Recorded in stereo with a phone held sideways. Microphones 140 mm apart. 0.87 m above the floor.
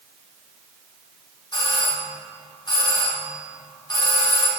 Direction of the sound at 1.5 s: 30° left (ahead or behind).